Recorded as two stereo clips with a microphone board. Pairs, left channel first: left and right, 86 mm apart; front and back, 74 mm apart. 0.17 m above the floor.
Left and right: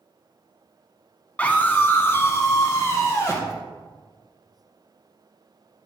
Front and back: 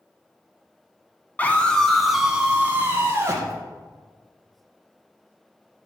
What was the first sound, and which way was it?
A scream, 35° left.